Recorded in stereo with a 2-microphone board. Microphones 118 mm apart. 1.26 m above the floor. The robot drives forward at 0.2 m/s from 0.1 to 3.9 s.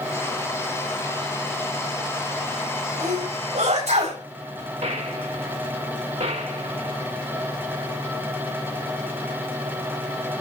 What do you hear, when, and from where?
3.0 s a sneeze: 80° right, 8 m
4.8 s a gunshot: 75° right (ahead or behind), 2 m